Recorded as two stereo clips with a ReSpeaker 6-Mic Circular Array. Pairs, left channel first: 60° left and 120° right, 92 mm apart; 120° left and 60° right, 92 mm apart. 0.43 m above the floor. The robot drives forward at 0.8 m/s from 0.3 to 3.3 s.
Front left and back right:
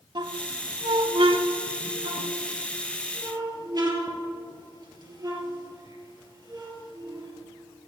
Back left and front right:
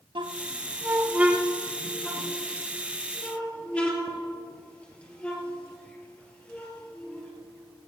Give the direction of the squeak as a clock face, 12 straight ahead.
3 o'clock.